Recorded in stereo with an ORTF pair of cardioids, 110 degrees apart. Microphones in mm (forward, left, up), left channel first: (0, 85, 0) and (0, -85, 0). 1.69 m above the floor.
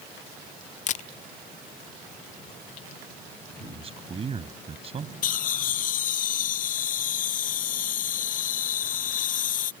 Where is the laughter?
55° left.